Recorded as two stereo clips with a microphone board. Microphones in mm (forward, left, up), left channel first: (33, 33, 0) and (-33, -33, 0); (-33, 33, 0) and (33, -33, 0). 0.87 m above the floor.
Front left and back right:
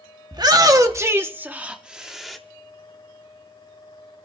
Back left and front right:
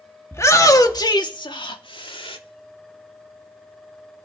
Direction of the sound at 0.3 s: 170° right.